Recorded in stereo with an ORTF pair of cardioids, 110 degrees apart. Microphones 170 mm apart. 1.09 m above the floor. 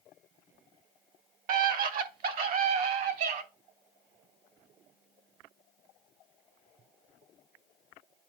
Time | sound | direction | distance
1.5 | a scream | 55° right | 1.7 m